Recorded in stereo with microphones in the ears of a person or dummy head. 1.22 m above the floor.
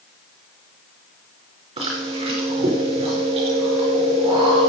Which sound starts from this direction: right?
Chewing, at 1.8 s.